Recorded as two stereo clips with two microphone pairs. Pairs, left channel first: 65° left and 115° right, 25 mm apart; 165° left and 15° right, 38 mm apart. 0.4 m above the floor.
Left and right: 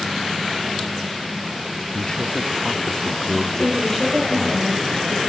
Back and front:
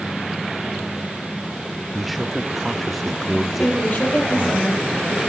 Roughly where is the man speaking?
Left.